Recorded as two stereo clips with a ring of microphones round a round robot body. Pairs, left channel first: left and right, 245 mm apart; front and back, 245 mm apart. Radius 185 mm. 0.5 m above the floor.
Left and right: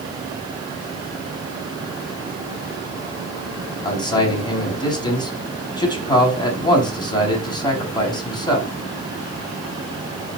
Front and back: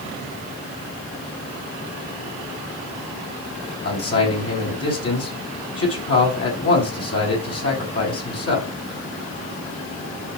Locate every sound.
3.8 s a man speaking: 20° left, 6 m